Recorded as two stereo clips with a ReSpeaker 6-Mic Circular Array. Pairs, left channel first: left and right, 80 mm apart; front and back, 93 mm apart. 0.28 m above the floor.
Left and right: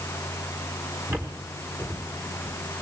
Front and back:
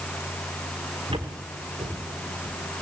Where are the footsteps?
150° right, 6 m.